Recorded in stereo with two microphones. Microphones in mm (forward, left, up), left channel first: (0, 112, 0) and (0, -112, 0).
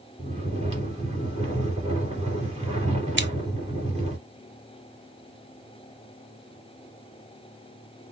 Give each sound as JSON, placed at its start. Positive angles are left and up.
{"t": 0.2, "sound": "snoring", "side_deg": -30, "distance_m": 2.5}
{"t": 3.2, "sound": "scissors", "side_deg": -55, "distance_m": 0.5}